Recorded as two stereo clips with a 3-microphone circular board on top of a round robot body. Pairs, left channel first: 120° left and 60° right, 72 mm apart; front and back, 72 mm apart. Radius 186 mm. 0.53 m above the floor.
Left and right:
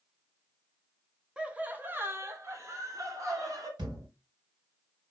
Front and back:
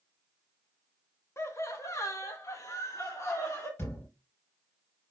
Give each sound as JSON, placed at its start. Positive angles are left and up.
{"t": 1.4, "sound": "laughter", "azimuth_deg": 10, "distance_m": 1.5}
{"t": 3.8, "sound": "a thud", "azimuth_deg": -55, "distance_m": 4.5}